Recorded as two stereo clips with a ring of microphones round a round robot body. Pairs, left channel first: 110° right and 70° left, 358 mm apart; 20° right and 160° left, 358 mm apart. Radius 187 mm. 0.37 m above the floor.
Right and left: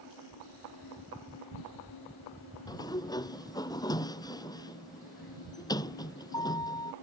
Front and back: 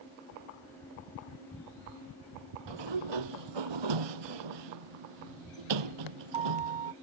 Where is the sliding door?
170° left.